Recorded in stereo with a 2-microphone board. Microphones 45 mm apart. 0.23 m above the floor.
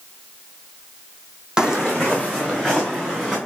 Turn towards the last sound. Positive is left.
turn(degrees=-15)  # may be behind; listen again after turning